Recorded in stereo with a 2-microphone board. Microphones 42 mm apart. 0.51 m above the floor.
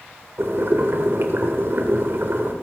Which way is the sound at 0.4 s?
60° right (ahead or behind).